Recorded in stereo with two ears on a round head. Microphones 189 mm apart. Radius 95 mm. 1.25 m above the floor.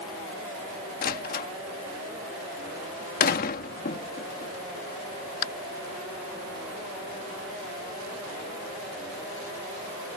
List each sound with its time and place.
1.0 s a door slam: 45° left (ahead or behind)